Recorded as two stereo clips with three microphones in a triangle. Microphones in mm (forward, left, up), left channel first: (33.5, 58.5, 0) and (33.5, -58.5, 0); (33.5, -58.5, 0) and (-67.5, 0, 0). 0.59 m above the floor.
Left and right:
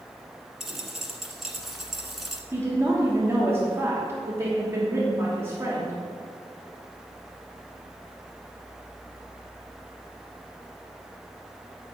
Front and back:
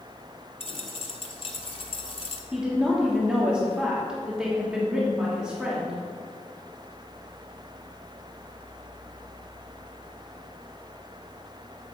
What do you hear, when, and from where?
0.6 s a dropped coin: straight ahead, 1.0 m
2.5 s a woman speaking: 135° right, 1.2 m